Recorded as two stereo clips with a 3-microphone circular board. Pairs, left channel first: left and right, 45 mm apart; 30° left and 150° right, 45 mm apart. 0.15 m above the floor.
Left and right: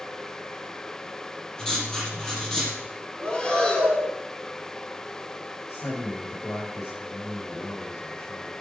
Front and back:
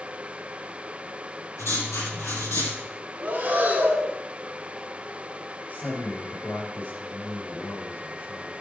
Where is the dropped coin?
I don't hear a dropped coin.